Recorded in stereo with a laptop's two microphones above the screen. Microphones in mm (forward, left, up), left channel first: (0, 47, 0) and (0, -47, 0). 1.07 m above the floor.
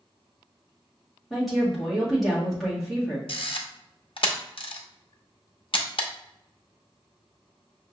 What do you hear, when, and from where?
1.3 s a woman speaking: centre (ahead or behind), 1.7 m
3.3 s a camera shutter: 70° left (ahead or behind), 0.7 m